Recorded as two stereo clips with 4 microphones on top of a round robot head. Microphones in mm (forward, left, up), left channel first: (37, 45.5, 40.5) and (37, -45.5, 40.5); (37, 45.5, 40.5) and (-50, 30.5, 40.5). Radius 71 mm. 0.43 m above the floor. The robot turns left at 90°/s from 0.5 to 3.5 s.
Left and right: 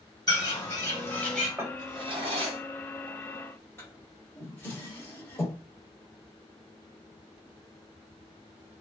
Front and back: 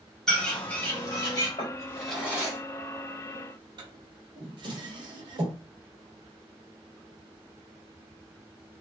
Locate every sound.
0.3 s a bird: 95° left, 1.8 m; by 1.5 s 5° left, 1.8 m
1.6 s a drawer: 25° right, 1.1 m; by 5.6 s 160° left, 1.1 m